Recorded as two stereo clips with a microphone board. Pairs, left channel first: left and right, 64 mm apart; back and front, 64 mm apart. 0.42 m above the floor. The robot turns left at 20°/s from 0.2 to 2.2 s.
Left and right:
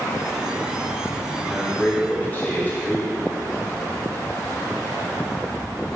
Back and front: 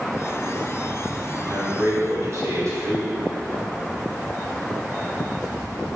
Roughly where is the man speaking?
Ahead left.